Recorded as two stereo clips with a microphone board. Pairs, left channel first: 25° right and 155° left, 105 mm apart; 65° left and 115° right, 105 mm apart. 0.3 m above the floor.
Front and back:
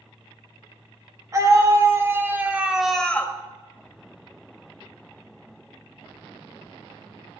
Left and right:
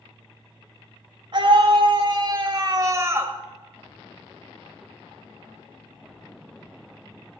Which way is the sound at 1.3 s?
150° right.